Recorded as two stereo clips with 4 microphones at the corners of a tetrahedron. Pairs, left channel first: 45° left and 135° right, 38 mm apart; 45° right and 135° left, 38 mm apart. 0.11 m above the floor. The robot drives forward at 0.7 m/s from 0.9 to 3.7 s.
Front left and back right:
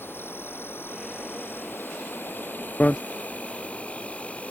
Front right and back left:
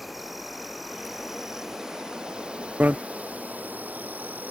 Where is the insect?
45° left; by 4.5 s 95° left.